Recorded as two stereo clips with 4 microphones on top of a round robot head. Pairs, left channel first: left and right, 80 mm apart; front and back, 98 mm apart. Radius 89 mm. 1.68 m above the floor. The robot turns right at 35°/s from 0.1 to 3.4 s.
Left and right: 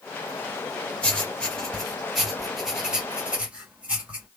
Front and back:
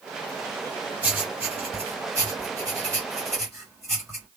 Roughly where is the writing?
Behind left.